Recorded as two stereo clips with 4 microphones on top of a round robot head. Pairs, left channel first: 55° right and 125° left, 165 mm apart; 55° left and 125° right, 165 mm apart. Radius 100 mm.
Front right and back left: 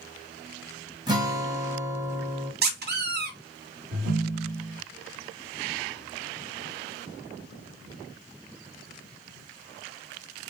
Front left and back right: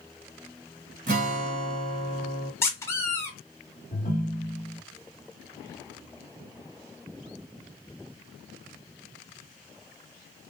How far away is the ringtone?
About 1.2 m.